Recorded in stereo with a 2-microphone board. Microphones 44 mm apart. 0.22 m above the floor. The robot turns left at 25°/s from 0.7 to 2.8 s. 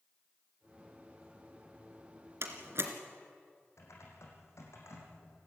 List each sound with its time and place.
2.4 s a door slam: 65° right (ahead or behind), 2.5 m; by 2.9 s 60° right (ahead or behind), 2.5 m
3.8 s typing on a keyboard: 80° left, 5 m